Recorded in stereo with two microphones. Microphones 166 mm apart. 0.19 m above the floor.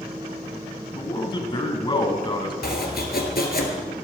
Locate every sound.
0.9 s a man speaking: 30° left (ahead or behind), 1.6 m
2.6 s chopping: 70° left (ahead or behind), 1.7 m